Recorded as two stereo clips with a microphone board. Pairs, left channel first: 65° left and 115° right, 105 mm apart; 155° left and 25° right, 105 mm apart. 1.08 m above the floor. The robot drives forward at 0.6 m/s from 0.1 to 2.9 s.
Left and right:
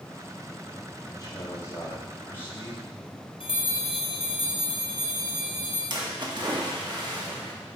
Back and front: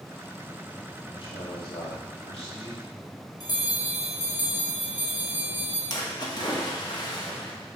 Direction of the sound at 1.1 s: 120° left.